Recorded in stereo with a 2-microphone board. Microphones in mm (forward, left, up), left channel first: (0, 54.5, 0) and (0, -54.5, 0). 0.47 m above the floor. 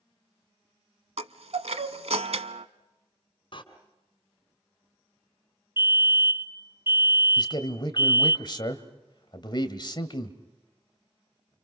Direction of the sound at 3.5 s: 50° left (ahead or behind).